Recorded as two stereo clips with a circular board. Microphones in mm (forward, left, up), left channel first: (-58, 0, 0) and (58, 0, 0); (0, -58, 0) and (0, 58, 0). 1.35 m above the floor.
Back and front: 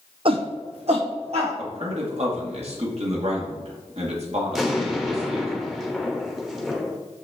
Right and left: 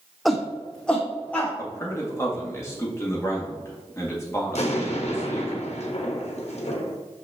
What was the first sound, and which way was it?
A shout, straight ahead.